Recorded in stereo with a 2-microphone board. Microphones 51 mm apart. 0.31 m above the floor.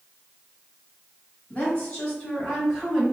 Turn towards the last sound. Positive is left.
turn(degrees=-10)  # may be behind; listen again after turning